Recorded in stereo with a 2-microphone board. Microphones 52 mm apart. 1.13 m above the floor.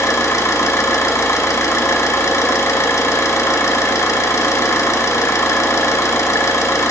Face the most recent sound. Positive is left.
turn(degrees=85)